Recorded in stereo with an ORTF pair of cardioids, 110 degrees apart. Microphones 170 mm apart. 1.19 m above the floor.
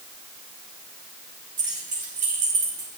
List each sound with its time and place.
1.6 s keys jangling: 50° right, 4.5 m; by 2.9 s 35° right, 6 m